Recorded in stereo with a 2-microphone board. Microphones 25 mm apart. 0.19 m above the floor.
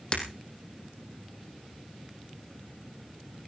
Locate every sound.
0.1 s breaking glass: 35° left (ahead or behind), 4.5 m